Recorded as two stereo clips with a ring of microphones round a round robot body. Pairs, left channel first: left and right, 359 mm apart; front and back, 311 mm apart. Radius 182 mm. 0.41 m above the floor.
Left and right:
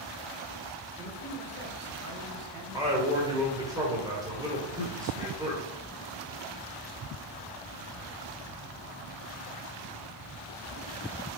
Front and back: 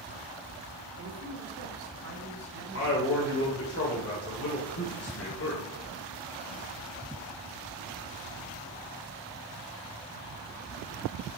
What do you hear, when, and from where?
1.0 s a man speaking: 165° right, 1.6 m; by 3.2 s 115° right, 3 m
2.7 s a man speaking: 15° right, 1.7 m